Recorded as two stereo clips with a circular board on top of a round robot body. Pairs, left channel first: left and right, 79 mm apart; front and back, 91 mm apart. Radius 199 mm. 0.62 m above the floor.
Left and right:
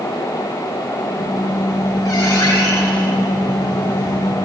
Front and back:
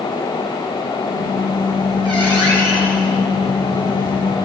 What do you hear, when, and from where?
1.1 s a squeak: 140° left, 9 m